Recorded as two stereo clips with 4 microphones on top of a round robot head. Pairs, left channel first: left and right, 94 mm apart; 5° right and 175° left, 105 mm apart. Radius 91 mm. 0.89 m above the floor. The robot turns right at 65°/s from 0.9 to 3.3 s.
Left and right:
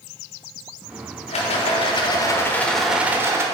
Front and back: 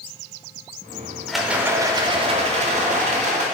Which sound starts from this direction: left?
A rattle, at 1.3 s.